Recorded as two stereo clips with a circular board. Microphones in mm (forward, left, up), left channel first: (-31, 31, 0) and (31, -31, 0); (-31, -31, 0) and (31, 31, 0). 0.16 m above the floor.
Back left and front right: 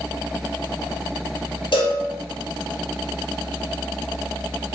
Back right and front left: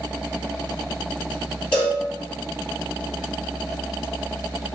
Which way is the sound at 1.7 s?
145° left.